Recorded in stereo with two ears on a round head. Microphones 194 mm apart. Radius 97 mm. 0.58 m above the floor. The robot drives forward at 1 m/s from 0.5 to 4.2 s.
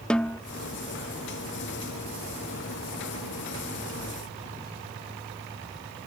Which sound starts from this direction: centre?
A snare drum, at 0.1 s.